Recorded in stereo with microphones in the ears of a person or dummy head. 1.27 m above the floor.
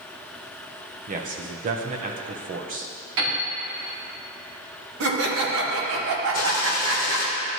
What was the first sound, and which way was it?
A man speaking, 40° right (ahead or behind).